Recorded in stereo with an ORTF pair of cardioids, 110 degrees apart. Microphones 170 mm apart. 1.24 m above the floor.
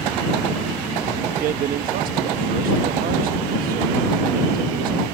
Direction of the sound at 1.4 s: 60° right.